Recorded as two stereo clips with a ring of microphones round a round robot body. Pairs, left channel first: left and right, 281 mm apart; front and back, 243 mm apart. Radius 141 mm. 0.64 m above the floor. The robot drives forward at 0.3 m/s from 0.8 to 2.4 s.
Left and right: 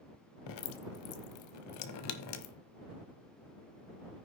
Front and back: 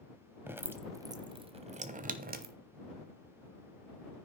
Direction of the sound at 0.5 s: 100° left.